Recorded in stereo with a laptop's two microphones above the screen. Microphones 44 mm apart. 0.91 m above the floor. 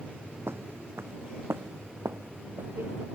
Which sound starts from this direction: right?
Footsteps, at 0.5 s.